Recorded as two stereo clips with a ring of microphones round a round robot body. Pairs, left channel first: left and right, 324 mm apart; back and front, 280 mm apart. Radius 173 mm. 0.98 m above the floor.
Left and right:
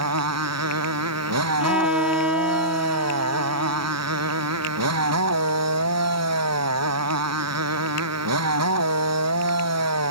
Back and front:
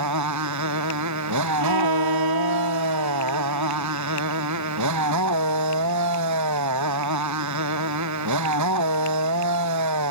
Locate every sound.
0.0 s a motorcycle: 45° right
1.6 s a violin: 5° right